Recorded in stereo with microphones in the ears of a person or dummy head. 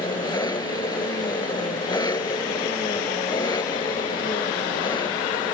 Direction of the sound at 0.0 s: 20° left (ahead or behind).